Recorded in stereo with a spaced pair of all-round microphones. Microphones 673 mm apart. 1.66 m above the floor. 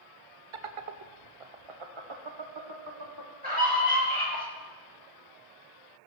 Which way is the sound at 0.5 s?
45° right (ahead or behind).